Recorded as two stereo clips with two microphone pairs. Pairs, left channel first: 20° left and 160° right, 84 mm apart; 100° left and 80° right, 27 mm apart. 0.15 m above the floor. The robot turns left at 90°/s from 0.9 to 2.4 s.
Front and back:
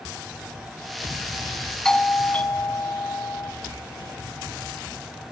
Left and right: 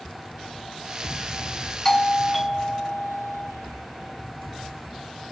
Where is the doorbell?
90° left, 1.4 m; by 3.5 s 40° left, 1.4 m.